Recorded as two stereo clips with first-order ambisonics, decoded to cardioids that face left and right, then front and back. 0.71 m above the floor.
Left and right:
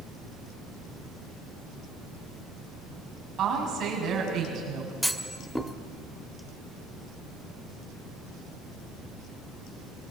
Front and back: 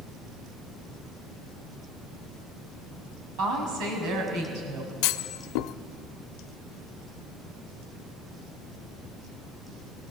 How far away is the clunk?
About 0.8 m.